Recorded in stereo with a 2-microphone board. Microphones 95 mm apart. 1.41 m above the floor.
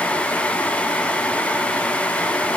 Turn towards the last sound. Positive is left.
No sound to turn to.